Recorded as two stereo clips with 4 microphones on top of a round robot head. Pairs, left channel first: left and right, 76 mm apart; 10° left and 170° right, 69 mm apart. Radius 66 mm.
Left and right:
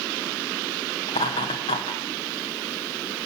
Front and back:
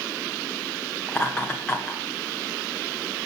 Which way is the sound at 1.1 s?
85° left.